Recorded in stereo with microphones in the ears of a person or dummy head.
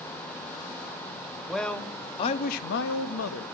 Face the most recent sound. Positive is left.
turn(degrees=75)  # may be behind; listen again after turning